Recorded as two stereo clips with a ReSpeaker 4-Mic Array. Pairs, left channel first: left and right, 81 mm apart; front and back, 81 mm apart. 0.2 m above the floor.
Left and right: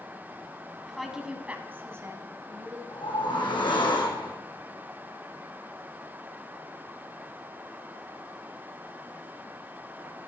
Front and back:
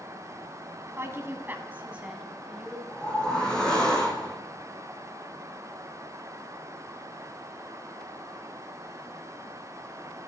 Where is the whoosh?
80° left, 2.5 m.